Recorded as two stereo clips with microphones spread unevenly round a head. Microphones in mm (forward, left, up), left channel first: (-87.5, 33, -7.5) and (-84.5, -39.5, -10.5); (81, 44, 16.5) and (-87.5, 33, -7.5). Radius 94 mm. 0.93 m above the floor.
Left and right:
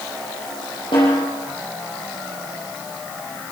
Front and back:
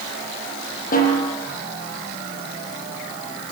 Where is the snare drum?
45° left, 7.5 m.